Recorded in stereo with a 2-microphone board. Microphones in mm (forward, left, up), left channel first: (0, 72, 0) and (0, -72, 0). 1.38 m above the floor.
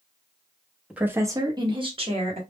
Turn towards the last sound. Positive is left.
turn(degrees=-45)  # may be behind; listen again after turning